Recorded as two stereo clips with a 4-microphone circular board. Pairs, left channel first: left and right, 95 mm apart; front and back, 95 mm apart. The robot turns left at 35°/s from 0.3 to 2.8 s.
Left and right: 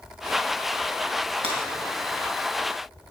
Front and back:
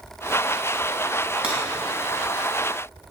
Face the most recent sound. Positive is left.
turn(degrees=-150)